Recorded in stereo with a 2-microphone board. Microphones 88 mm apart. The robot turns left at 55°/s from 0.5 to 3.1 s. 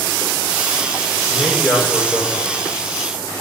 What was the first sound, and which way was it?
A man speaking, straight ahead.